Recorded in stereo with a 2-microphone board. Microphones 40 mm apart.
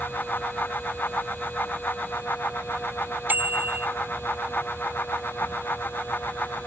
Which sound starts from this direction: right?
A bicycle bell, at 3.3 s.